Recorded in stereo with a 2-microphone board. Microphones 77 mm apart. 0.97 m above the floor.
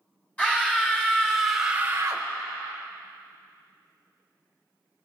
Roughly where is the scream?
Centre.